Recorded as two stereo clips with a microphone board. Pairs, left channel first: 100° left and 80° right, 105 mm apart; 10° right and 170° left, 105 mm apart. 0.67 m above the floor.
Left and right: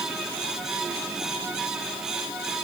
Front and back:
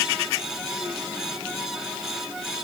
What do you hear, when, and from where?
Only background noise.